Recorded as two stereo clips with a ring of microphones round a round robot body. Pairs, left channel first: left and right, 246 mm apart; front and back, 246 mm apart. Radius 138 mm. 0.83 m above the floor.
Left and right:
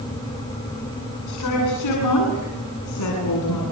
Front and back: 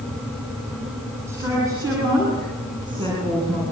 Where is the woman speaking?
100° left, 9.5 m; by 3.6 s 110° left, 9.5 m.